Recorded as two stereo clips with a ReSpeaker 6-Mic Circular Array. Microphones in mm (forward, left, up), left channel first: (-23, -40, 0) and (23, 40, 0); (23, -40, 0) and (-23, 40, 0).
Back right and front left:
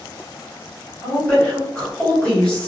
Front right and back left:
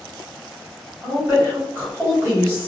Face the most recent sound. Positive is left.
turn(degrees=170)